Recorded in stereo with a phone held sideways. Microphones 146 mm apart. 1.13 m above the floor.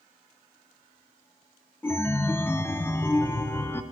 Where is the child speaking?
I don't hear a child speaking.